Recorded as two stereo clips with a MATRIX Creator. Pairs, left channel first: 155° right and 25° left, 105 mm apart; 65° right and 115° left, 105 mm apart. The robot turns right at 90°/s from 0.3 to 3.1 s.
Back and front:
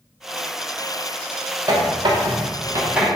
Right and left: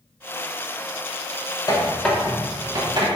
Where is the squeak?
25° right, 0.7 m; by 3.1 s 100° left, 0.7 m.